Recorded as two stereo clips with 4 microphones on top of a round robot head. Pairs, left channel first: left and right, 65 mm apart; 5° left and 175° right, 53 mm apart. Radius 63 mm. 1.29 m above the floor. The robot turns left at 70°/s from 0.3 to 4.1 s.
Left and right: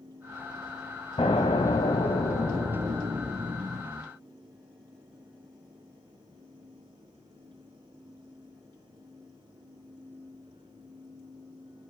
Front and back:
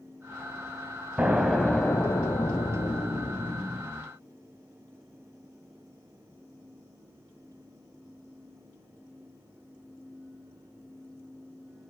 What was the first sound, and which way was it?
An explosion, 120° left.